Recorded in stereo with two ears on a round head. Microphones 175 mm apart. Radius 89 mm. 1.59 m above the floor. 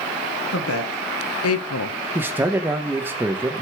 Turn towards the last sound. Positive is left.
turn(degrees=-10)  # may be behind; listen again after turning